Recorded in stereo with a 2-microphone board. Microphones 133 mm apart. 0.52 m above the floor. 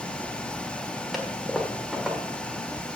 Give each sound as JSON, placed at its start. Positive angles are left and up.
{"t": 1.1, "sound": "a toilet flushing", "side_deg": 0, "distance_m": 1.5}